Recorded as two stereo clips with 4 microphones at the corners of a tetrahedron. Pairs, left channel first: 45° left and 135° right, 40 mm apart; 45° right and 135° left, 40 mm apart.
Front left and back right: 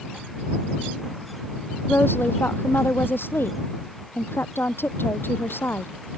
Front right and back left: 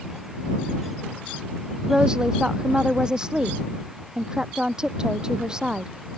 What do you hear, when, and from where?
1.9 s a woman speaking: 65° left